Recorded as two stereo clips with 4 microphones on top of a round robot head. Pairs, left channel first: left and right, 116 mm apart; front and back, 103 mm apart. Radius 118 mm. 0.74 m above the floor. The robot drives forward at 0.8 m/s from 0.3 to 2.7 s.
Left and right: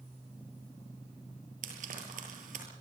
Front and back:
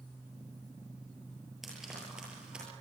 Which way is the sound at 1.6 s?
90° right.